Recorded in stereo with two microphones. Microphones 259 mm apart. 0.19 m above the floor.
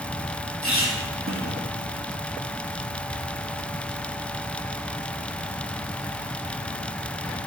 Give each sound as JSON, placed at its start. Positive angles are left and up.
{"t": 0.6, "sound": "a squeak", "side_deg": -55, "distance_m": 4.0}